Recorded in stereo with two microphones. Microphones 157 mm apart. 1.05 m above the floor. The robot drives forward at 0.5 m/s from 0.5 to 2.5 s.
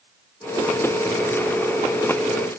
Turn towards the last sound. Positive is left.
No sound to turn to.